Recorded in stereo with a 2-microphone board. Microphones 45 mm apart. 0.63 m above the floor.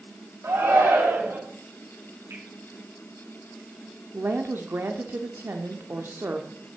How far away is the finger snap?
About 6 m.